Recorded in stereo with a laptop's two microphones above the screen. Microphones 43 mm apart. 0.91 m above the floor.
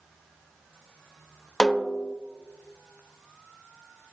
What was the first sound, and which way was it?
A snare drum, 15° left (ahead or behind).